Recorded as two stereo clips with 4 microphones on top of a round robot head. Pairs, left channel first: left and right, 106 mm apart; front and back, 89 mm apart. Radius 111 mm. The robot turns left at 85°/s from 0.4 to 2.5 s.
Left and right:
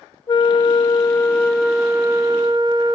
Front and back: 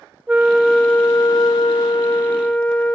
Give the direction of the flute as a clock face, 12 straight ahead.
8 o'clock.